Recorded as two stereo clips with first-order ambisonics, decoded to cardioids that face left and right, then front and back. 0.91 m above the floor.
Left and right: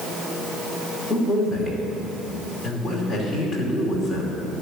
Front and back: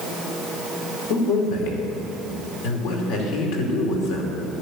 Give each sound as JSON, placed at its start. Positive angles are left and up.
{"t": 1.1, "sound": "a man speaking", "azimuth_deg": -5, "distance_m": 3.0}